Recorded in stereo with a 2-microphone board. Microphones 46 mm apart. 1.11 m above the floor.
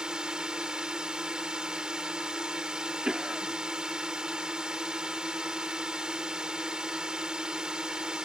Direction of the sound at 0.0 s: 15° right (ahead or behind).